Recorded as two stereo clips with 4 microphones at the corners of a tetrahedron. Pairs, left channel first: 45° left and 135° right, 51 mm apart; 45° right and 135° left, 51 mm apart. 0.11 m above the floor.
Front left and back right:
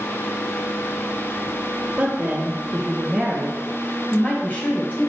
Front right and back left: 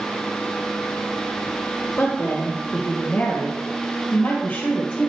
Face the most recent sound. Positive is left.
turn(degrees=10)